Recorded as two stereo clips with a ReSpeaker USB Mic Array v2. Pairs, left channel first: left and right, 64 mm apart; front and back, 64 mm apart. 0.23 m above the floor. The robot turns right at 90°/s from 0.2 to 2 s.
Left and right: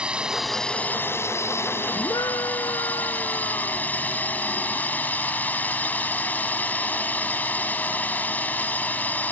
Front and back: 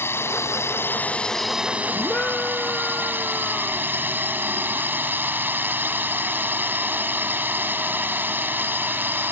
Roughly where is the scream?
Left.